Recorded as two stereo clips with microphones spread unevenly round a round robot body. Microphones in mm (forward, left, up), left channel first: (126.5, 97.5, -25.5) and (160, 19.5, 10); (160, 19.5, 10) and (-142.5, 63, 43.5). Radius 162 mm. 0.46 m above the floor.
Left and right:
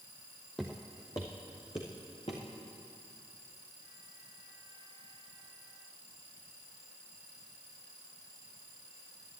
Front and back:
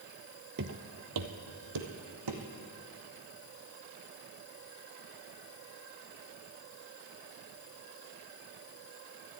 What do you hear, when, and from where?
0.6 s footsteps: 140° right, 0.7 m; by 2.4 s 175° right, 2.0 m